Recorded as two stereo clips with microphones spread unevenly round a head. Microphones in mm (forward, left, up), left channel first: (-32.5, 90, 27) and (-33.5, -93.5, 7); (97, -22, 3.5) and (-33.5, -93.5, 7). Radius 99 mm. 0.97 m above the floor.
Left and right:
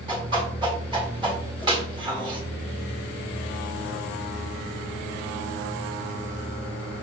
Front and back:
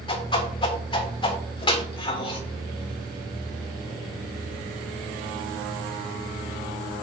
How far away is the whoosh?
About 1.7 m.